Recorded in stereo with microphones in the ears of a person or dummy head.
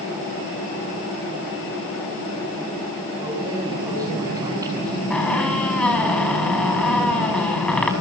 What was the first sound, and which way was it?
Keys jangling, 25° right (ahead or behind).